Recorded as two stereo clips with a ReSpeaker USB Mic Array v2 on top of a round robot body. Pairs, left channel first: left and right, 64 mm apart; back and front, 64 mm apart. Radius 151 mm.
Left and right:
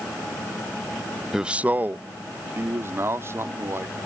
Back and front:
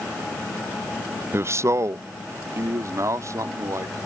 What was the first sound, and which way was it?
A man speaking, 10° right.